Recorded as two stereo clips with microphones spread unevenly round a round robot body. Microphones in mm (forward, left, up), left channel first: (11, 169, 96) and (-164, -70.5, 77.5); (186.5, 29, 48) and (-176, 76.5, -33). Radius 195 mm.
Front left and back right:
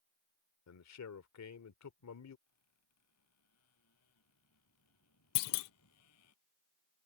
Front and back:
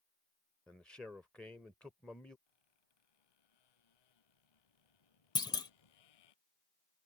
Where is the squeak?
5° left.